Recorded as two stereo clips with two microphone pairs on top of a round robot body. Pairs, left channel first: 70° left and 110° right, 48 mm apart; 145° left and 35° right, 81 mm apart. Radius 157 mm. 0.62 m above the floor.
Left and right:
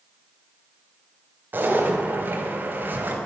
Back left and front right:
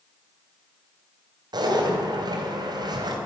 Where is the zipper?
65° right, 2.5 m.